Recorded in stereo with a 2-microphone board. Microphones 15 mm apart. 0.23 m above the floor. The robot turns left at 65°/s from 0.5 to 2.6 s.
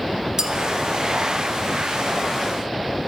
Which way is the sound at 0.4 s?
40° right (ahead or behind).